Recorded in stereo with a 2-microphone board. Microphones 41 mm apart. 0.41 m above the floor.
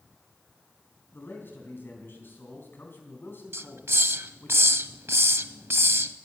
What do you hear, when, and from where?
1.1 s a man speaking: 60° left (ahead or behind), 3.5 m
3.5 s a hiss: 85° right, 0.5 m